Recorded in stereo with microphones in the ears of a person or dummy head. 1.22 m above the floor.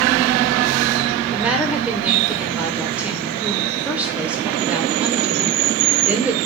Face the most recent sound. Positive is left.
turn(degrees=-10)  # may be behind; listen again after turning